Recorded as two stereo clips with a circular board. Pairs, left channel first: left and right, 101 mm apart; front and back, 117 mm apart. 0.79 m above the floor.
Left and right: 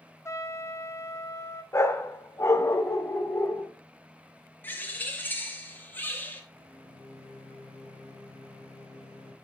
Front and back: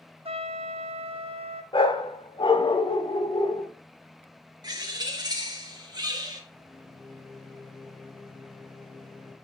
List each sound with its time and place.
0.2 s a trumpet: 150° left, 0.9 m
1.7 s a dog barking: 35° left, 0.9 m
4.6 s a bird: 150° left, 1.3 m
6.5 s a microwave: 85° left, 3 m